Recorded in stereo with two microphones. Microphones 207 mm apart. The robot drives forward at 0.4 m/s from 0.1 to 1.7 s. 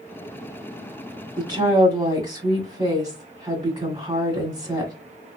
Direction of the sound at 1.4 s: 20° right (ahead or behind).